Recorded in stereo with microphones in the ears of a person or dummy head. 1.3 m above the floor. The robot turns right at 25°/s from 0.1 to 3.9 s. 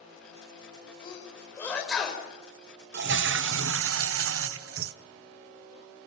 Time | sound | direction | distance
1.0 | a sneeze | 25° left (ahead or behind) | 5 m
2.9 | a toilet flushing | 55° right (ahead or behind) | 0.7 m